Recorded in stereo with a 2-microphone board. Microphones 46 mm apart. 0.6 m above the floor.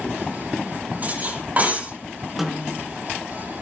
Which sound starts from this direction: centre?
A snare drum, at 2.4 s.